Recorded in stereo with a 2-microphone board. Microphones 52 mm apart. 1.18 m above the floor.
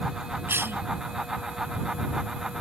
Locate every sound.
0.5 s a cough: 45° right (ahead or behind)